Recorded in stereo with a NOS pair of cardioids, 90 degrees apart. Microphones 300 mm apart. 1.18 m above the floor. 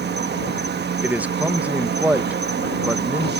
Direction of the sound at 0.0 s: 35° right.